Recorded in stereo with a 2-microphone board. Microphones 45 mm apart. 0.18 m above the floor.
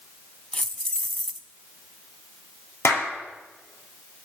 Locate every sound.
0.5 s keys jangling: 20° left (ahead or behind), 0.7 m
2.9 s a clap: 75° left (ahead or behind), 3 m